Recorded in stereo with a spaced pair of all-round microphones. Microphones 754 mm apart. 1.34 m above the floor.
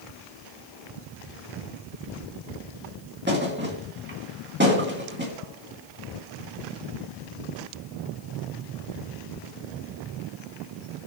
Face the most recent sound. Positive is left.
turn(degrees=-15)  # may be behind; listen again after turning